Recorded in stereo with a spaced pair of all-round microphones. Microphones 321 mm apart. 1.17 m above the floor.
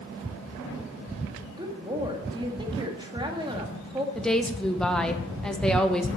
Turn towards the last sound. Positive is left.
turn(degrees=0)  # may be behind; listen again after turning